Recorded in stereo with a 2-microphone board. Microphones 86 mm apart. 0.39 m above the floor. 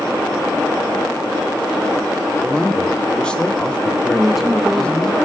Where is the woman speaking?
5° right (ahead or behind), 0.9 m.